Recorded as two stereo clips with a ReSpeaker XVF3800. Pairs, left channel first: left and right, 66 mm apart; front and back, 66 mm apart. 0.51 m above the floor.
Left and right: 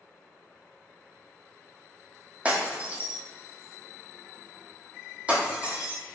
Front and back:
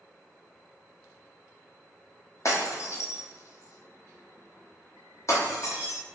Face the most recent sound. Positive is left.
turn(degrees=-25)